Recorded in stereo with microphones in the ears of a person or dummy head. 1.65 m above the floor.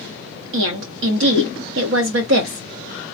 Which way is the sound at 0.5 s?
65° right (ahead or behind).